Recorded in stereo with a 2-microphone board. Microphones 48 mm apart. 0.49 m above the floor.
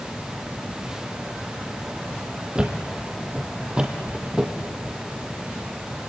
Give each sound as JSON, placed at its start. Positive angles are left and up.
{"t": 2.5, "sound": "a thud", "side_deg": -20, "distance_m": 3.0}